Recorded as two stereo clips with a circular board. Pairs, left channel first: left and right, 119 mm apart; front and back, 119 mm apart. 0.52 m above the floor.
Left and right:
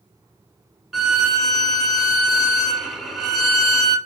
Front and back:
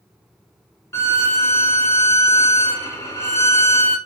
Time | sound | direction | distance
0.9 | a violin | straight ahead | 0.9 m